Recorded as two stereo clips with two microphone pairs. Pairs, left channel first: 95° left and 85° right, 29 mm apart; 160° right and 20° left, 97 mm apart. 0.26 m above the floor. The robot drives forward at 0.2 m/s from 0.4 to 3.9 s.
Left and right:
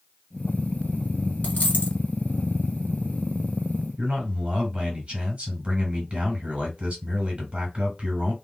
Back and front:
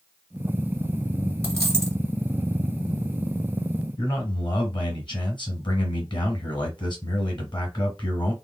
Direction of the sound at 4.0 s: 135° right.